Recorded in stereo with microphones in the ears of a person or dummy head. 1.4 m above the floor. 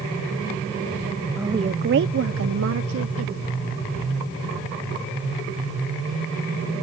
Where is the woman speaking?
5° right (ahead or behind); by 3.5 s 75° right (ahead or behind).